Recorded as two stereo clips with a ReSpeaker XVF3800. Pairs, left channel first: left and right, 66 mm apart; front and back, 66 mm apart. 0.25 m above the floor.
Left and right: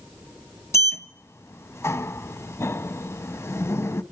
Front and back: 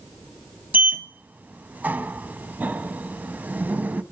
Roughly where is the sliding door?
Behind left.